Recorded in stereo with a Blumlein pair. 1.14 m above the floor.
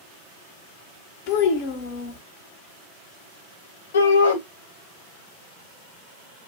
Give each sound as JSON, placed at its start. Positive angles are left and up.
{"t": 1.3, "sound": "a child speaking", "azimuth_deg": 45, "distance_m": 0.8}
{"t": 3.9, "sound": "a shout", "azimuth_deg": 65, "distance_m": 1.0}